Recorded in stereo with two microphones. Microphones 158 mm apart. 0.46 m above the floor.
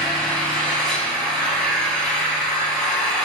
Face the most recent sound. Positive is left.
turn(degrees=5)  # may be behind; listen again after turning